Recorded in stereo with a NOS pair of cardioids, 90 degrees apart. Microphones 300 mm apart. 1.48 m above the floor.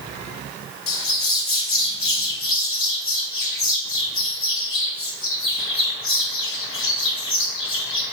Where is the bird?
50° left, 2.5 m.